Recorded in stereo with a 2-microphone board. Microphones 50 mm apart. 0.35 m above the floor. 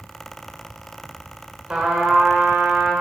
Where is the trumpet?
25° right (ahead or behind), 1.1 m.